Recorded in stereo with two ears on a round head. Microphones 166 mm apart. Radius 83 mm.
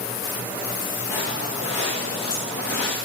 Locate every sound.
1.1 s footsteps: 75° left (ahead or behind), 6.5 m